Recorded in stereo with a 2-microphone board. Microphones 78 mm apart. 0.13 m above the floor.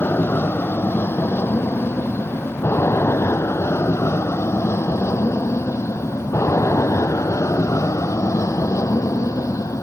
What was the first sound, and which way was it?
An aircraft, 30° left (ahead or behind).